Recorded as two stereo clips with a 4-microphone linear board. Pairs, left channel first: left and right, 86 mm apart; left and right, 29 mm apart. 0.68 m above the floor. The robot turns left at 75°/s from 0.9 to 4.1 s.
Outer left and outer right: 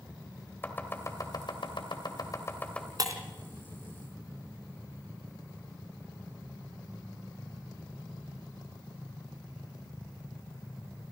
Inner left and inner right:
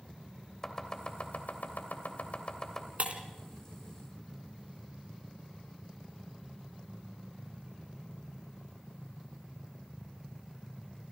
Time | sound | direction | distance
0.6 | chopping | 25° left (ahead or behind) | 2.5 m
3.0 | breaking glass | 50° right (ahead or behind) | 2.5 m